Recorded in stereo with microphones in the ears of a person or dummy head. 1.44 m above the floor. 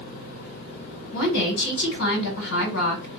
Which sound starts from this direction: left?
A woman speaking, at 1.1 s.